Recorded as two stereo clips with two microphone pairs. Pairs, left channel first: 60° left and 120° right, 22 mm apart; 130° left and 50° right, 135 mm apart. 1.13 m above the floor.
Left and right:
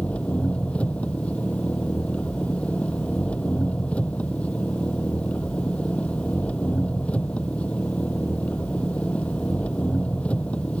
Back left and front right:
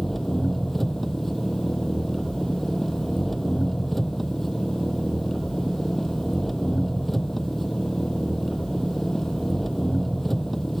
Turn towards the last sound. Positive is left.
turn(degrees=45)